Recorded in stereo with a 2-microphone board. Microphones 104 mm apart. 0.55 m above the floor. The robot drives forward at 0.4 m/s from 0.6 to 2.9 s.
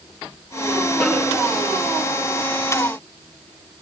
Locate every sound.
1.0 s a snare drum: centre (ahead or behind), 4.5 m